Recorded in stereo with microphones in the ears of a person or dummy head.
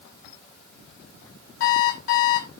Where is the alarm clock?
70° left (ahead or behind), 3 m.